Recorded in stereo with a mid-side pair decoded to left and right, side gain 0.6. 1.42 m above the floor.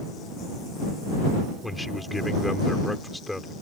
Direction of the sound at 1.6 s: 10° left.